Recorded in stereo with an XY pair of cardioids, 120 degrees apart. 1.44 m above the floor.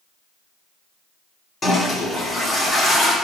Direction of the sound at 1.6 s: 25° left.